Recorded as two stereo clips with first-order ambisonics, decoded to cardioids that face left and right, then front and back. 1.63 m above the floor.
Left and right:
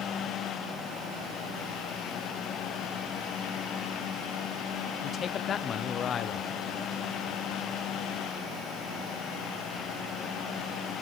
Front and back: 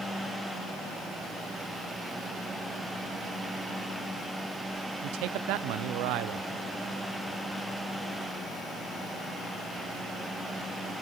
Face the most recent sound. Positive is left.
turn(degrees=155)